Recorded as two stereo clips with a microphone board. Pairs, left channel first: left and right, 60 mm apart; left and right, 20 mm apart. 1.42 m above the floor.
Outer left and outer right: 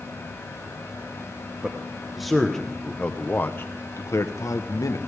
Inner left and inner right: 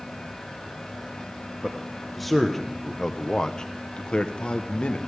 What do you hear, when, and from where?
1.6 s a man speaking: 10° right (ahead or behind), 1.3 m; by 5.0 s 70° left (ahead or behind), 1.2 m